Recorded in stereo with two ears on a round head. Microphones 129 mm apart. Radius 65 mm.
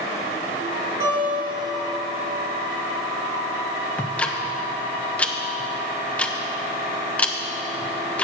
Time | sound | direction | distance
1.0 | a guitar | 25° right (ahead or behind) | 4 m
4.0 | ticking | 10° left (ahead or behind) | 0.6 m